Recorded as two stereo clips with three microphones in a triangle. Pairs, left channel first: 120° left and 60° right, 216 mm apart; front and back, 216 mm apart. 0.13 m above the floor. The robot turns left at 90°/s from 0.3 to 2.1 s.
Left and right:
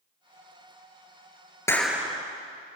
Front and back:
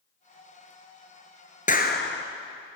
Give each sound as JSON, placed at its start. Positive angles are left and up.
{"t": 1.7, "sound": "a clap", "azimuth_deg": 45, "distance_m": 2.0}